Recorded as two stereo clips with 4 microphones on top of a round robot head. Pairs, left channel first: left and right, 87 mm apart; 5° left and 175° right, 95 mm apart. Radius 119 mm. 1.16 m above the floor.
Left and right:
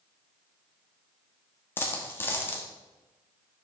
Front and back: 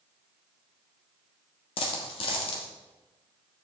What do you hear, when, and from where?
1.8 s a dropped coin: 25° left, 0.9 m